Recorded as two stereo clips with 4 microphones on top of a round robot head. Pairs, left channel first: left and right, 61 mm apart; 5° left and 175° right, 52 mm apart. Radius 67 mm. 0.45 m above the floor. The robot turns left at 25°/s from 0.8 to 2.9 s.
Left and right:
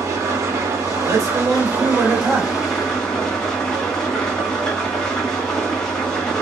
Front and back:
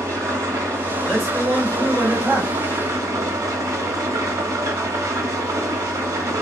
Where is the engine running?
135° right, 0.9 m; by 6.4 s 175° left, 0.9 m.